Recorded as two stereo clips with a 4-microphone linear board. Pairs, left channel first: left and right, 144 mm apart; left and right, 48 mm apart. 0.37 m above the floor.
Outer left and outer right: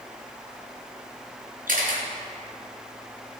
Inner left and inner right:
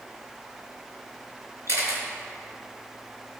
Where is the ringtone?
I don't hear a ringtone.